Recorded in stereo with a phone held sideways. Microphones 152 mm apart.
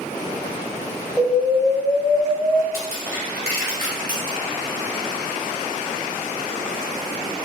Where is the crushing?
75° right (ahead or behind), 1.7 m.